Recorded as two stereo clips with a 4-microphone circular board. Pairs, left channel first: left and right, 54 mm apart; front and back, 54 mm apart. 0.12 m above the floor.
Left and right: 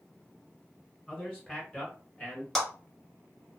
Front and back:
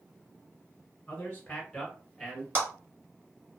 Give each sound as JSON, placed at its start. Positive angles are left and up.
{"t": 1.1, "sound": "a man speaking", "azimuth_deg": 30, "distance_m": 1.5}
{"t": 2.5, "sound": "a clap", "azimuth_deg": 170, "distance_m": 1.6}